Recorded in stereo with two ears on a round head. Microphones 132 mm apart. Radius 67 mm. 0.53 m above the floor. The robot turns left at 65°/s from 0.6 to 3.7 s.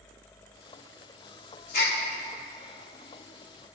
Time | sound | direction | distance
1.7 | a gasp | 60° left (ahead or behind) | 1.4 m